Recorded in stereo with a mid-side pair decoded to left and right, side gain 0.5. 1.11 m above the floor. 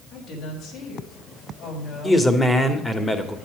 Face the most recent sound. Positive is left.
turn(degrees=15)